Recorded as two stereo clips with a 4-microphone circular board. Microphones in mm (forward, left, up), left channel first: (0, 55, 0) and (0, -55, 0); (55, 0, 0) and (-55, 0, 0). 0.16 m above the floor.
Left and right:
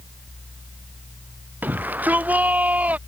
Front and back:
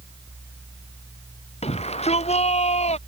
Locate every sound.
1.6 s a shout: 15° right; by 3.0 s 10° right